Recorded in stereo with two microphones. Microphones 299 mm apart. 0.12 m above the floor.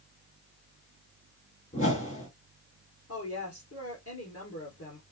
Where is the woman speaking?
50° left (ahead or behind), 2 m.